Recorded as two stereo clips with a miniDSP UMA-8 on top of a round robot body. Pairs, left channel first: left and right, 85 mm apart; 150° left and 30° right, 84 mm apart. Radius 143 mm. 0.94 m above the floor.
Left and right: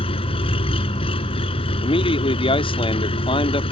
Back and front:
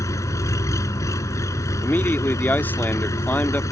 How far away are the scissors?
I don't hear scissors.